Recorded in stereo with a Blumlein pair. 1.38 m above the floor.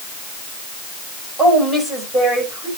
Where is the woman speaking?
10° right, 7 m.